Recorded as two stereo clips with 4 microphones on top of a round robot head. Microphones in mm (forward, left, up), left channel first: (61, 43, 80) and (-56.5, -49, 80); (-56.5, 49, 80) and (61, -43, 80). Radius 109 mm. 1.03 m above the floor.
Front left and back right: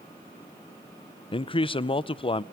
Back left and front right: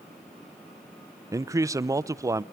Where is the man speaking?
15° left, 0.8 m.